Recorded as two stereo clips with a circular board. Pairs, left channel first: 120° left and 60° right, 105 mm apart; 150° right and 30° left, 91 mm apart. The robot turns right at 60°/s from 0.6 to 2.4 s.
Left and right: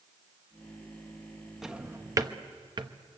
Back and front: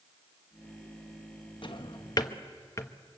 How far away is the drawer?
About 1.0 m.